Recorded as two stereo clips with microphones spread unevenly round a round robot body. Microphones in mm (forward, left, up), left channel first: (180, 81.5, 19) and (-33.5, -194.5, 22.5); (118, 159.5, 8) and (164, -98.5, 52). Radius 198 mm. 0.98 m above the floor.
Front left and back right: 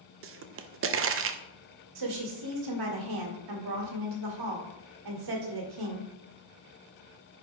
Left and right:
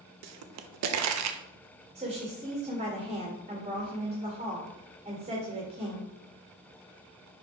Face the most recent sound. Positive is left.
turn(degrees=-155)